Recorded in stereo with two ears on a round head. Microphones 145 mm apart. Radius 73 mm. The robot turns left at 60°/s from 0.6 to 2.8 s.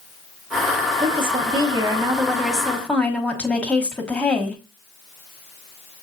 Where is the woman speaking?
85° right, 1.1 m; by 4.6 s 165° left, 1.1 m.